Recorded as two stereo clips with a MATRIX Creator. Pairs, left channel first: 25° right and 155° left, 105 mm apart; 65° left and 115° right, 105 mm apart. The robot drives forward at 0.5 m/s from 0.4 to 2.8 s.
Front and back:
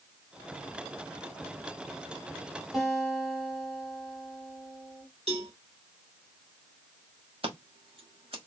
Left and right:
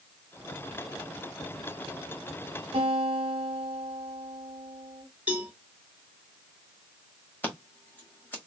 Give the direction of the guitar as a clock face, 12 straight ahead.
4 o'clock.